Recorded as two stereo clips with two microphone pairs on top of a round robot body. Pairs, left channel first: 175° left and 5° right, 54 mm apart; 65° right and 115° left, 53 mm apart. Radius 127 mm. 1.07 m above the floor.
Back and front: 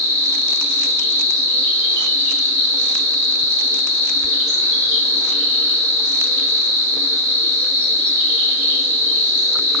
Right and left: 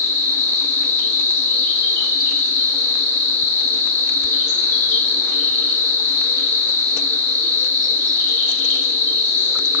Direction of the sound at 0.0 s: 20° right.